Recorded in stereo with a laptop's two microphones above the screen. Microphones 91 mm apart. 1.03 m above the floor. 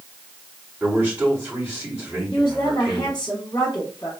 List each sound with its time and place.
0.8 s a man speaking: 15° right (ahead or behind), 2.5 m
2.3 s a woman speaking: 35° left (ahead or behind), 1.1 m